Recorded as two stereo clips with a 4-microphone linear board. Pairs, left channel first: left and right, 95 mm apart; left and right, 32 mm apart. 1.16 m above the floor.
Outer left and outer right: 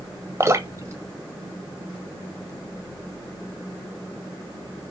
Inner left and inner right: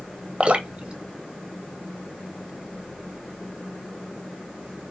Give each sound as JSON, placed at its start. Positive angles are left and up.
{"t": 0.4, "sound": "dripping", "side_deg": -30, "distance_m": 1.2}